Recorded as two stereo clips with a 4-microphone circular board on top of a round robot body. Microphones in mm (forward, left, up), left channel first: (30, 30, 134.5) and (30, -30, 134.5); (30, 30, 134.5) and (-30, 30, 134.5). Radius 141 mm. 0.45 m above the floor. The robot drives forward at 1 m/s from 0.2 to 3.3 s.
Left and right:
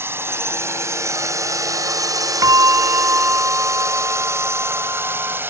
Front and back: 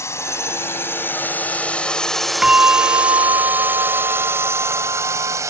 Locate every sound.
0.0 s a drone: 40° right; by 5.5 s 145° right
2.4 s a bell: 105° right; by 5.4 s 155° right